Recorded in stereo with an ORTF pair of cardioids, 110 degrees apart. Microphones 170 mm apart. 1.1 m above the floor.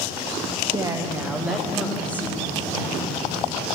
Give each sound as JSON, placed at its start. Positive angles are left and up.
{"t": 0.7, "sound": "a woman speaking", "azimuth_deg": -25, "distance_m": 1.5}